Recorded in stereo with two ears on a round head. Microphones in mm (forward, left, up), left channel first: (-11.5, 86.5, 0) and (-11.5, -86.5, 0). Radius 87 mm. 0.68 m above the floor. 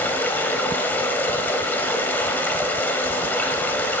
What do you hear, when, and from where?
0.0 s running water: 10° left (ahead or behind), 1.5 m